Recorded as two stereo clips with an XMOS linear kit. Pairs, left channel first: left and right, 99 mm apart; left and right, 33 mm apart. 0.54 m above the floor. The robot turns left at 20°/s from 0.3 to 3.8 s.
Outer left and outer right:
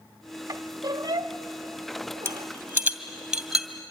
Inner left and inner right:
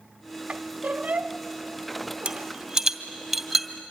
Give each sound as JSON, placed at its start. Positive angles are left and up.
{"t": 0.5, "sound": "a squeak", "side_deg": -45, "distance_m": 0.9}
{"t": 2.2, "sound": "a rattle", "side_deg": -30, "distance_m": 1.9}